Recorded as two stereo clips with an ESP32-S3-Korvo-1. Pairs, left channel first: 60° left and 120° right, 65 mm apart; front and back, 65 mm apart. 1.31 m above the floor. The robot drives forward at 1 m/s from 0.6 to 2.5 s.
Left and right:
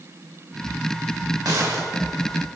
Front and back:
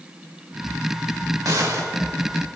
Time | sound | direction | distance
1.4 | a gunshot | 145° right | 3 m